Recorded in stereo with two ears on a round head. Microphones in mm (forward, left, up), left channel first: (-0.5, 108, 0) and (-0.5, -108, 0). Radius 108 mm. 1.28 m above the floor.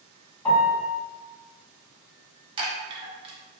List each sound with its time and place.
0.5 s a piano: 20° left (ahead or behind), 1.5 m
2.6 s a chime: 20° right (ahead or behind), 0.5 m